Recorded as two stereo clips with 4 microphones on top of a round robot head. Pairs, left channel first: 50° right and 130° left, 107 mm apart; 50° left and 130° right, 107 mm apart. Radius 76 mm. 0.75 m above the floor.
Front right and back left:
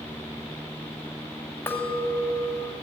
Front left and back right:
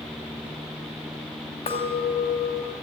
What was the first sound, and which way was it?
A clink, 20° left.